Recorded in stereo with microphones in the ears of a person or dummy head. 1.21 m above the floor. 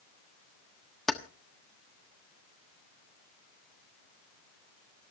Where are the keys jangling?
5° left (ahead or behind), 1.1 m.